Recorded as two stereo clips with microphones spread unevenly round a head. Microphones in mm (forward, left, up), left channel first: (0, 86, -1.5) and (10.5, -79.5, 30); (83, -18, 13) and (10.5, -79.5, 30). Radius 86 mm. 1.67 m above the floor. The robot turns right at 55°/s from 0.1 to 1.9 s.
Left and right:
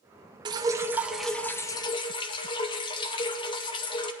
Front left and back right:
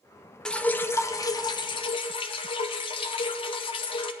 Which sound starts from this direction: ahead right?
Dripping, at 0.5 s.